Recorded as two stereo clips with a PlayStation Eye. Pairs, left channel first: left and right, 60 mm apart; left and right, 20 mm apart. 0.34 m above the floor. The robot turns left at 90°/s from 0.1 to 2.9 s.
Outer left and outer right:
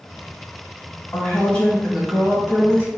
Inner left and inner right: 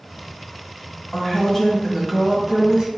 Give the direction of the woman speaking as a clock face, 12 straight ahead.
9 o'clock.